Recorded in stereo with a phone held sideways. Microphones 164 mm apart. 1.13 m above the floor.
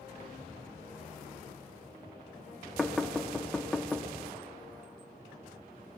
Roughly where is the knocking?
Centre.